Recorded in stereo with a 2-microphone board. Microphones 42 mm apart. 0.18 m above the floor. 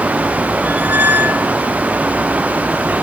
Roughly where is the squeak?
Right.